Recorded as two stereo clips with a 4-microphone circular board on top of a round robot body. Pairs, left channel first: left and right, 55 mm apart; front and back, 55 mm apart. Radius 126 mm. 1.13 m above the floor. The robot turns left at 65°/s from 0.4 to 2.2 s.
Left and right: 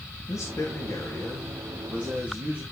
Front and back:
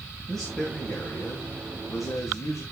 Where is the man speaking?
85° left, 2.5 m; by 2.6 s 35° right, 2.5 m.